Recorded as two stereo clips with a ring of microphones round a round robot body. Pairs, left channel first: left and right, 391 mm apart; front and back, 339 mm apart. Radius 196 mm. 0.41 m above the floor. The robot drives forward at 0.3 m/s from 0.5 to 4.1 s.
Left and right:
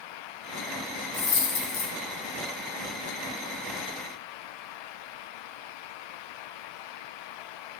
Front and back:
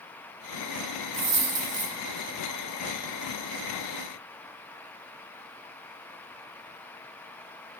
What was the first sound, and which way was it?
A dropped coin, 135° left.